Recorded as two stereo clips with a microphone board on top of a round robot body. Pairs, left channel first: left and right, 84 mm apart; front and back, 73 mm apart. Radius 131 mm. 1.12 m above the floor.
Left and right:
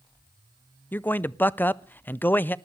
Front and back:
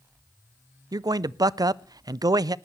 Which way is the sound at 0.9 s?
155° left.